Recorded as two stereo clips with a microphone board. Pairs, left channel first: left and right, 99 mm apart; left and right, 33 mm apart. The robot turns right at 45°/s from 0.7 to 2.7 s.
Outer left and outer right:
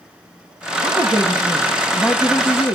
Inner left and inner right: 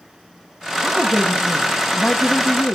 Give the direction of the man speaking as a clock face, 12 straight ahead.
2 o'clock.